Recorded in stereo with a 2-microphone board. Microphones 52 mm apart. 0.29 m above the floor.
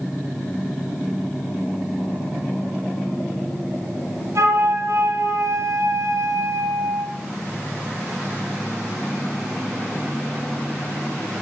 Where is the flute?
70° right (ahead or behind), 5 m.